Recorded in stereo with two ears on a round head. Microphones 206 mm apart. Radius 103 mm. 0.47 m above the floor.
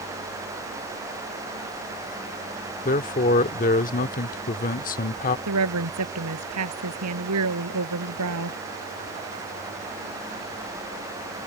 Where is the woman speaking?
75° right (ahead or behind).